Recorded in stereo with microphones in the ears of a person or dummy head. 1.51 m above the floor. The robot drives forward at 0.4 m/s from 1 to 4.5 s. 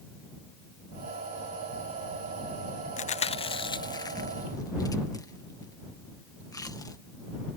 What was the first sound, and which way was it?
Chewing, 40° left (ahead or behind).